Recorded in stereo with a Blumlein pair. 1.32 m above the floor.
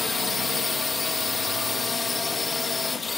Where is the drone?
15° left.